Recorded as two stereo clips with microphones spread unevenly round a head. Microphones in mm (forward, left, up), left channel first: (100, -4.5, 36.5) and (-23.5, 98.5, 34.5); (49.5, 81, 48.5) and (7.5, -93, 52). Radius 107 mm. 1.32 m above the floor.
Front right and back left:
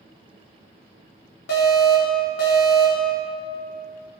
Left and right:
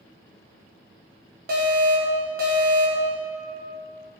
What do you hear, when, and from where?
1.5 s an alarm: 70° right, 3.5 m